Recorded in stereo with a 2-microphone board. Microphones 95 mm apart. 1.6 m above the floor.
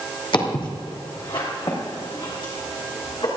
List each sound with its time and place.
0.3 s footsteps: 60° left (ahead or behind), 3 m